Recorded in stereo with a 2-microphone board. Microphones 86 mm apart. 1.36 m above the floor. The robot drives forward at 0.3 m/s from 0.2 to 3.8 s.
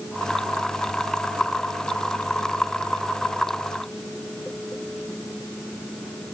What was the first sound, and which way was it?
Only background noise.